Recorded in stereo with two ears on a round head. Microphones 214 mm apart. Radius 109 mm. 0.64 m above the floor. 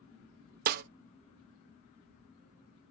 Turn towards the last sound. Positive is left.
turn(degrees=-35)  # may be behind; listen again after turning